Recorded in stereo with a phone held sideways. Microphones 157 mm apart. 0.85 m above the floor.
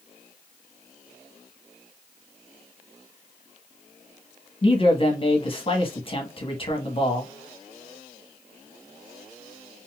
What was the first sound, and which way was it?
A man speaking, 35° left (ahead or behind).